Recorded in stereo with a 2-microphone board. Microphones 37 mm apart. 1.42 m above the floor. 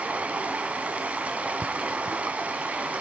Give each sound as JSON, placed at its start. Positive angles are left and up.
{"t": 0.0, "sound": "running water", "side_deg": -40, "distance_m": 1.7}